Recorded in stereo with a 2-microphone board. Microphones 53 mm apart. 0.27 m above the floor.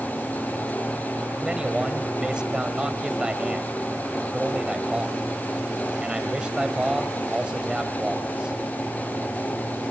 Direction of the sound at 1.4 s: 15° right (ahead or behind).